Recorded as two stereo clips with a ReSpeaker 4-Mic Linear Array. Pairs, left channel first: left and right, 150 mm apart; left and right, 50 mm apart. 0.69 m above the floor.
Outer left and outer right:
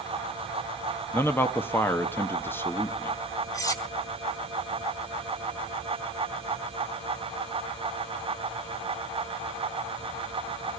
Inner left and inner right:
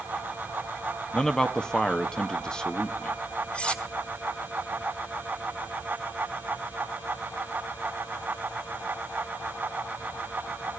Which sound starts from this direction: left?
Cutlery clinking, at 3.5 s.